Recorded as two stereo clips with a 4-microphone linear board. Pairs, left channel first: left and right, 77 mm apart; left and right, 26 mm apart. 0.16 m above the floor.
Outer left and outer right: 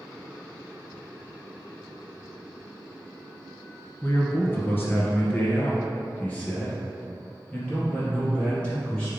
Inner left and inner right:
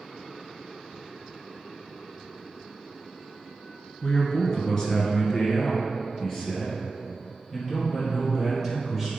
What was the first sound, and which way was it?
A man speaking, 30° left (ahead or behind).